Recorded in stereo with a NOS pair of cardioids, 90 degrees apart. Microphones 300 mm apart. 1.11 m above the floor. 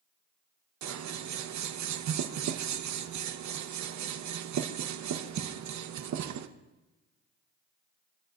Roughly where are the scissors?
Ahead right.